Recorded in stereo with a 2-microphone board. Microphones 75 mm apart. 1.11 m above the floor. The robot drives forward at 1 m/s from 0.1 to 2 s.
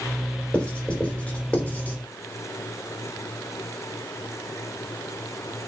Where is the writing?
10° left (ahead or behind), 4.5 m; by 2.0 s 15° left (ahead or behind), 3 m.